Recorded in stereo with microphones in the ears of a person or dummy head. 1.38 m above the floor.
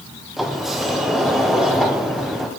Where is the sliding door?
Centre (ahead or behind), 0.5 m.